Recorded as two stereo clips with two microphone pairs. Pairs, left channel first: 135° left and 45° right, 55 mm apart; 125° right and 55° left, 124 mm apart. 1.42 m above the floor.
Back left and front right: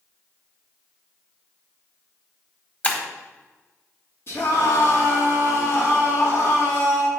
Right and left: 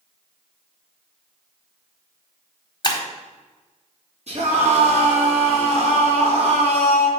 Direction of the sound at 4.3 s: 85° left.